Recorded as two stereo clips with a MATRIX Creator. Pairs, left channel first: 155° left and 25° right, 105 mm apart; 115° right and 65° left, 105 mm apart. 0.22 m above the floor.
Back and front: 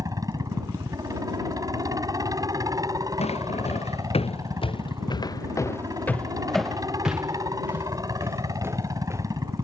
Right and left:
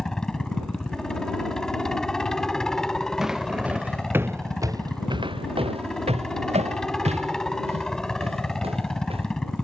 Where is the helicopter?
30° right.